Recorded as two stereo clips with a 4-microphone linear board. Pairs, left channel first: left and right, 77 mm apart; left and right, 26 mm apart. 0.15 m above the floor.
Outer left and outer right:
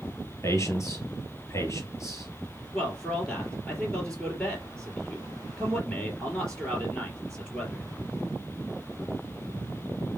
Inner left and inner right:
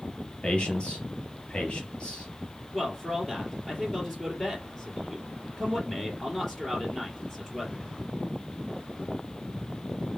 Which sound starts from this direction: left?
A man speaking, at 0.4 s.